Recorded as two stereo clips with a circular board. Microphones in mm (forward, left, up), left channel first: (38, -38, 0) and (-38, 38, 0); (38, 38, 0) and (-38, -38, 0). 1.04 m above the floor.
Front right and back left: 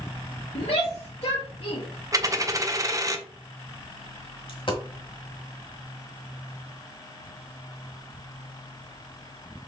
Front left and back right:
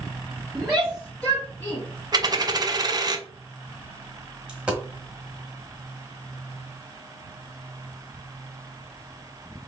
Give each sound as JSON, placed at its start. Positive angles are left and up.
{"t": 0.6, "sound": "a shout", "azimuth_deg": -50, "distance_m": 1.4}
{"t": 2.1, "sound": "a dropped coin", "azimuth_deg": -175, "distance_m": 0.6}
{"t": 4.5, "sound": "a dropped coin", "azimuth_deg": -55, "distance_m": 1.3}